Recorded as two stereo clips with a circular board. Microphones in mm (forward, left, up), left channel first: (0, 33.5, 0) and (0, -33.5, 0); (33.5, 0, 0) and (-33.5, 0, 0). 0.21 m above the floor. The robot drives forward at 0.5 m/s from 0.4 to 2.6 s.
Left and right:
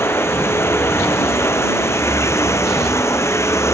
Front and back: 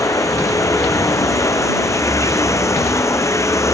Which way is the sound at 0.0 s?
40° left.